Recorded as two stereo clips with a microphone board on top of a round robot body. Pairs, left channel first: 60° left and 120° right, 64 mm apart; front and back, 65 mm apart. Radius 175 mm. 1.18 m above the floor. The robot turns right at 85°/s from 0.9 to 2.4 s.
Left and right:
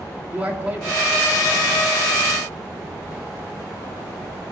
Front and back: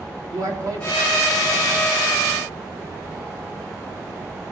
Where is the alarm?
I don't hear an alarm.